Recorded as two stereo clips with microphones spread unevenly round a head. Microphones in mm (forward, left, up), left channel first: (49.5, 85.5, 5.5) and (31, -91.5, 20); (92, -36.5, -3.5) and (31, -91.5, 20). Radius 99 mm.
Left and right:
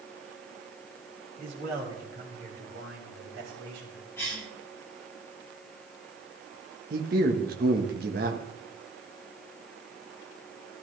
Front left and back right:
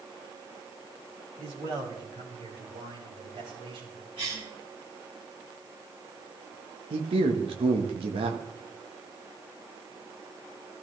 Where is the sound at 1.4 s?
155° right, 4.5 m; by 4.1 s 130° right, 7.5 m.